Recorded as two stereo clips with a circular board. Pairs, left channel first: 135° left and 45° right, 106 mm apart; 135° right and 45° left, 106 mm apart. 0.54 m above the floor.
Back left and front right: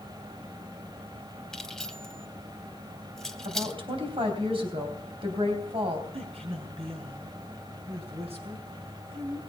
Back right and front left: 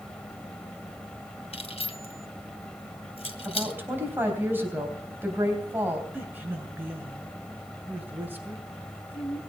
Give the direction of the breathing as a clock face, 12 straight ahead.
No breathing in this recording.